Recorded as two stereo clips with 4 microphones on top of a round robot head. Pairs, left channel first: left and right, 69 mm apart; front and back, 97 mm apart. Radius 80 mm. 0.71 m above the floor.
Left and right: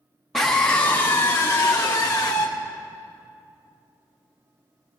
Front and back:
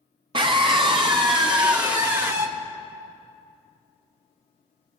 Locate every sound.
0.3 s a scream: straight behind, 1.1 m; by 2.5 s 135° left, 2 m